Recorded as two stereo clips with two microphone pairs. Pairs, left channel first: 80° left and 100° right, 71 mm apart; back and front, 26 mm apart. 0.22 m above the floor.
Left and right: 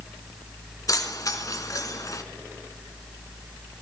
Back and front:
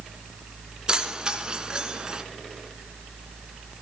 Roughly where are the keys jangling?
Ahead left.